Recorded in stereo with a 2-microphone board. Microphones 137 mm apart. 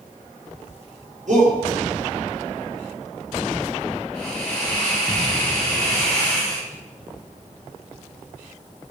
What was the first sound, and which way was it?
A shout, 65° right (ahead or behind).